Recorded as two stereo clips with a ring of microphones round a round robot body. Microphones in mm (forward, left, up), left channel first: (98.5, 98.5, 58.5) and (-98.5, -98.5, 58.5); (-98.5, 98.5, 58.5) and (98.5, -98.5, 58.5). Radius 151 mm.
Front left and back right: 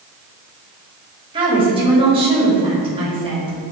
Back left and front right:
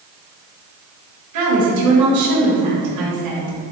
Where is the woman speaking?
65° right, 2.5 m.